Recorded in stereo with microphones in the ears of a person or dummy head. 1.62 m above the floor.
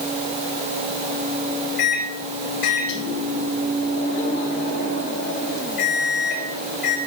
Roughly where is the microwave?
Left.